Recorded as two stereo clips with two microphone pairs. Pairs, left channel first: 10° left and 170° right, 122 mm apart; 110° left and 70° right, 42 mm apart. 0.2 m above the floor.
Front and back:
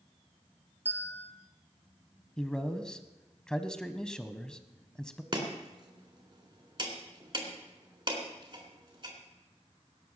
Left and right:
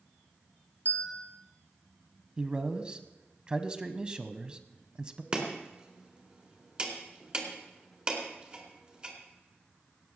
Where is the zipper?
I don't hear a zipper.